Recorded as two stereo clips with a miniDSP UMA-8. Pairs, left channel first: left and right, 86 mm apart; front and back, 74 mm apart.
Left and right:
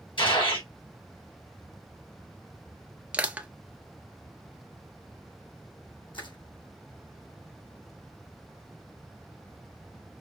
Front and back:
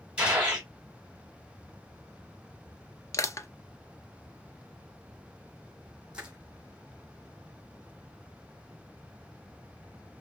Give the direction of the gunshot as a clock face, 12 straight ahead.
8 o'clock.